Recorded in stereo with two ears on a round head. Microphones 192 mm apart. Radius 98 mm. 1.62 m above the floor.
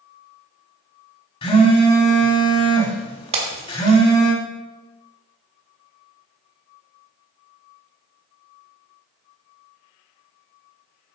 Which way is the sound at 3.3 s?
30° right (ahead or behind).